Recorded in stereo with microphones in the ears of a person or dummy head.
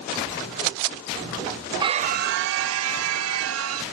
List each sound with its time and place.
1.8 s a scream: 20° right (ahead or behind); by 3.8 s 85° right